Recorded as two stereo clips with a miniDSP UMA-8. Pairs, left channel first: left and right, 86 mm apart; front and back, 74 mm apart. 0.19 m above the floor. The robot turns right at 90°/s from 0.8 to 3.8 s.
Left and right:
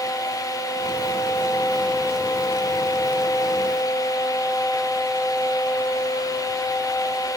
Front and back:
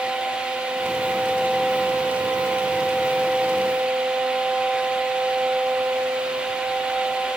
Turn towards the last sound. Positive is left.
No sound to turn to.